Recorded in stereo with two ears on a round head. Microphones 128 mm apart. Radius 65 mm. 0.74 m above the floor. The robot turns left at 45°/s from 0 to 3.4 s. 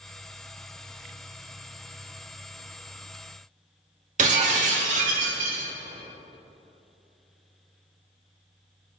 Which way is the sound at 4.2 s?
55° right (ahead or behind).